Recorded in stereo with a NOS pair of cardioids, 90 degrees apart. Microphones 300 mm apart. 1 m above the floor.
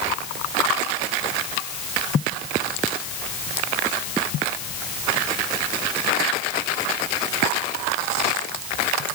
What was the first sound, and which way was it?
Only background noise.